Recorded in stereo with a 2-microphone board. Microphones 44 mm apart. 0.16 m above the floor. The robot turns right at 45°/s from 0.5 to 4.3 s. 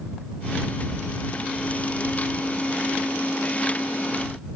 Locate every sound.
Only background noise.